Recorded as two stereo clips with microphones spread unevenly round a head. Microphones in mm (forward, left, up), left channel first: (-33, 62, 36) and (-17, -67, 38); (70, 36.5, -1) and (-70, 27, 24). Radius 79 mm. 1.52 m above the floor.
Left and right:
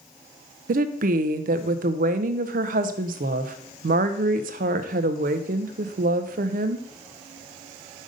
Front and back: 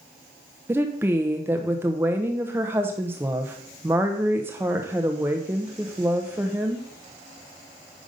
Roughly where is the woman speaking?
Right.